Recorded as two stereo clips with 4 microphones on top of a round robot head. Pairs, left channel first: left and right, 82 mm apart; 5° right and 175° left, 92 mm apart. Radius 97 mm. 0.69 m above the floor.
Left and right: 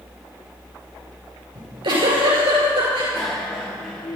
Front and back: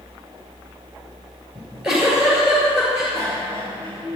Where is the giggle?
100° right, 6 m.